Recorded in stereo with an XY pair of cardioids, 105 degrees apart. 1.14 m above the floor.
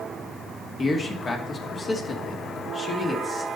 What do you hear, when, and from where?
0.8 s a man speaking: 35° left, 2 m